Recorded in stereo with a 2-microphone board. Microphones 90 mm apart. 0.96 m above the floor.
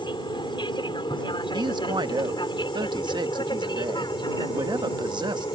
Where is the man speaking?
55° right (ahead or behind).